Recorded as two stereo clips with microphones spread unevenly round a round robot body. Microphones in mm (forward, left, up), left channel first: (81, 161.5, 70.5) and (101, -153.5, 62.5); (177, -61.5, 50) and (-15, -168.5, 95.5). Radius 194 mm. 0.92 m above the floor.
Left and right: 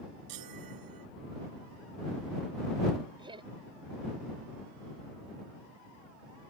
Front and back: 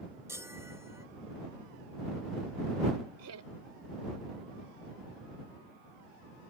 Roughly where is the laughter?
Behind.